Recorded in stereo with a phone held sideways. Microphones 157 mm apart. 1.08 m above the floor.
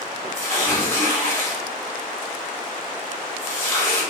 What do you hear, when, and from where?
0.3 s tearing paper: 15° left (ahead or behind), 1.5 m